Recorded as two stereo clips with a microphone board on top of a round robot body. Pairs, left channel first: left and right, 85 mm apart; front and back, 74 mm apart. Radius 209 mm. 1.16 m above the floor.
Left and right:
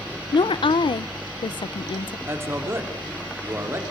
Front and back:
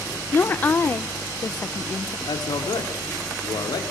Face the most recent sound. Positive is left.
turn(degrees=-25)